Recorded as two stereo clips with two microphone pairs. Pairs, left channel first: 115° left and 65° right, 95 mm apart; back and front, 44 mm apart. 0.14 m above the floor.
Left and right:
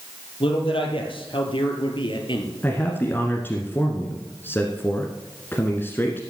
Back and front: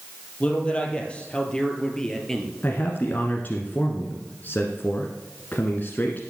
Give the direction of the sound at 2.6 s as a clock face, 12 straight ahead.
6 o'clock.